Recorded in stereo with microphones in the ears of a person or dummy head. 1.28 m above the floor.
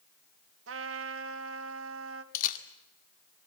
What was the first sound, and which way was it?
A trumpet, 80° right.